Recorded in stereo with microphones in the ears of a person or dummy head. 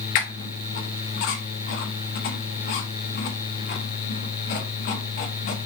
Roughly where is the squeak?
Left.